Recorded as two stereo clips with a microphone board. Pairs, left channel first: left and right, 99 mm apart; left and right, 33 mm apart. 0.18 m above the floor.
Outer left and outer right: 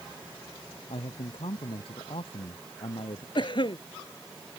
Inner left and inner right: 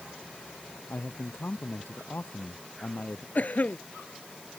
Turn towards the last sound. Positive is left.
turn(degrees=55)  # may be behind; listen again after turning